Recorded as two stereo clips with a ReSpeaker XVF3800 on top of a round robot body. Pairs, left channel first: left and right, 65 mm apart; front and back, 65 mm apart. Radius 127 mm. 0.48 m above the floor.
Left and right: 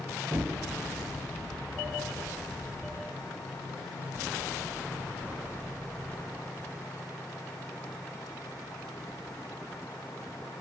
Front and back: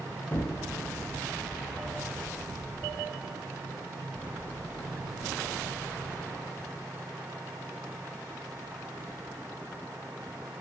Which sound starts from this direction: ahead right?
An explosion, at 0.3 s.